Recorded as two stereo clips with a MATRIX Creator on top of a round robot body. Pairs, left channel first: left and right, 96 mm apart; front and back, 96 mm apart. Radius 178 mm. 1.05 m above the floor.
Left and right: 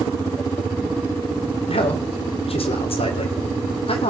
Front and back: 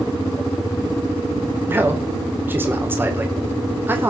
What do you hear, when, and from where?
1.7 s a man speaking: 110° left, 3.5 m